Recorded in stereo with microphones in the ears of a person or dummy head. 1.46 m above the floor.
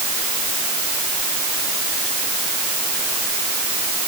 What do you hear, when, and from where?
Only background noise.